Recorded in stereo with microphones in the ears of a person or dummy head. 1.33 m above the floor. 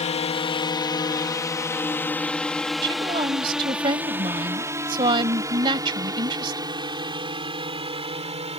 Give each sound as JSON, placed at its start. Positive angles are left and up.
{"t": 0.0, "sound": "a drone", "side_deg": 30}
{"t": 2.8, "sound": "a woman speaking", "side_deg": -25}